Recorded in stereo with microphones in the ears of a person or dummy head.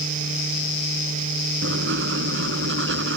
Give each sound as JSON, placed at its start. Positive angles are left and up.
{"t": 1.6, "sound": "writing", "side_deg": -75}